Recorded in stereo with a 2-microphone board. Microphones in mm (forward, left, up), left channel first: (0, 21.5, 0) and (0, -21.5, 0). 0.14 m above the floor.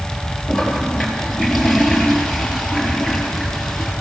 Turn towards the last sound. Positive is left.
turn(degrees=0)  # may be behind; listen again after turning